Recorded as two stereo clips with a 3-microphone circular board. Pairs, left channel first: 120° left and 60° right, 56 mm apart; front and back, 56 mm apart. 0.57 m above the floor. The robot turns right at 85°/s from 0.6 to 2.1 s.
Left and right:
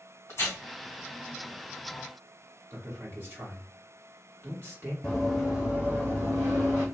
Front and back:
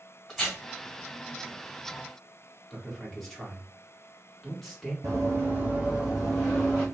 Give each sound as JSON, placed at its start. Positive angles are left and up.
{"t": 0.3, "sound": "tearing paper", "azimuth_deg": 95, "distance_m": 1.7}
{"t": 2.7, "sound": "a man speaking", "azimuth_deg": -85, "distance_m": 1.5}
{"t": 5.0, "sound": "running footsteps", "azimuth_deg": -160, "distance_m": 1.3}